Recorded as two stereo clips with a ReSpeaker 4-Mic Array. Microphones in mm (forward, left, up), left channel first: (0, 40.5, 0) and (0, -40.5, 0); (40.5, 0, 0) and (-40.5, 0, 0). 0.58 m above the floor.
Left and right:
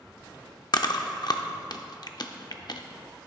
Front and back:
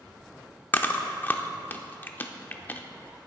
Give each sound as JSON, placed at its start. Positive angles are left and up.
{"t": 0.7, "sound": "chewing", "azimuth_deg": 65, "distance_m": 0.6}